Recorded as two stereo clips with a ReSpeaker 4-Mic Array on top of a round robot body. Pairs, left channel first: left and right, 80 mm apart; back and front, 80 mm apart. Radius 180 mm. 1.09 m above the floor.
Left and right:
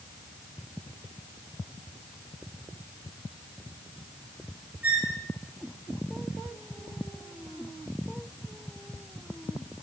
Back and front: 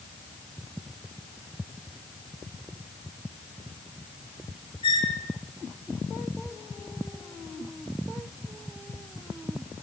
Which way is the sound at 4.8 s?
160° right.